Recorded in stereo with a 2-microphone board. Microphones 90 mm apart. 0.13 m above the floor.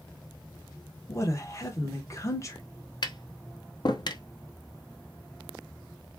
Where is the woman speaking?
35° left (ahead or behind), 1.4 m.